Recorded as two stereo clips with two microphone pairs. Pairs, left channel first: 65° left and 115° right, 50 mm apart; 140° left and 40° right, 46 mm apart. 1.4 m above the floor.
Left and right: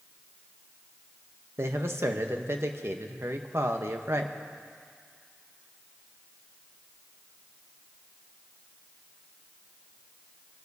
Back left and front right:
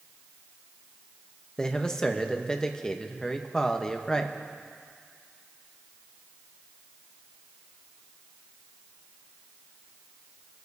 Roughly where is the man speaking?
Behind right.